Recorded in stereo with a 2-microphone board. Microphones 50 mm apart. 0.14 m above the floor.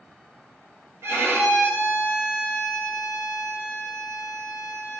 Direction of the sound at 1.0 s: 60° right (ahead or behind).